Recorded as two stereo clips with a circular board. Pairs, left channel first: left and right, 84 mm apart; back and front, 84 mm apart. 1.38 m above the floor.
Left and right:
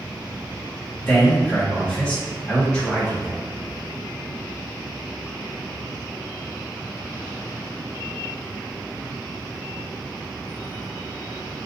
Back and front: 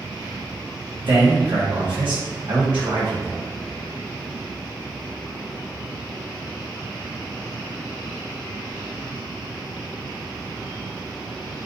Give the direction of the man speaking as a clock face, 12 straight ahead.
12 o'clock.